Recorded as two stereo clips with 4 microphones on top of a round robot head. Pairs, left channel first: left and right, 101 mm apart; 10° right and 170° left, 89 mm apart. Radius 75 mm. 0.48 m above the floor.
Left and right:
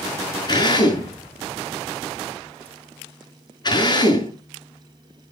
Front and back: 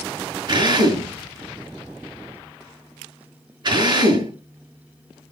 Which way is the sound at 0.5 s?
135° left.